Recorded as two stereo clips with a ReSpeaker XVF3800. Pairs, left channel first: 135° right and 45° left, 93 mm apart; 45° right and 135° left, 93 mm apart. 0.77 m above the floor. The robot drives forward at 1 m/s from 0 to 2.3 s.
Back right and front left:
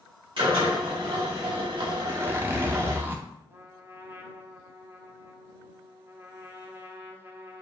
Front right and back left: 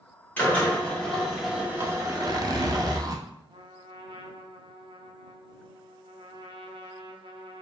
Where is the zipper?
65° left, 0.6 m; by 3.2 s 105° left, 0.6 m.